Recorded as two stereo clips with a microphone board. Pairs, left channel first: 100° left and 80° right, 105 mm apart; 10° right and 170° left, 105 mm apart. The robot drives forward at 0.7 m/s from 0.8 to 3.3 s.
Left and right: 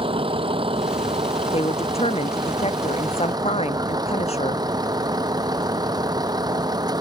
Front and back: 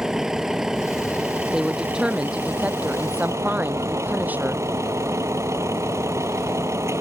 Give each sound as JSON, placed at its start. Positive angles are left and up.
{"t": 0.0, "sound": "a vehicle", "azimuth_deg": -105}
{"t": 1.5, "sound": "a woman speaking", "azimuth_deg": 85}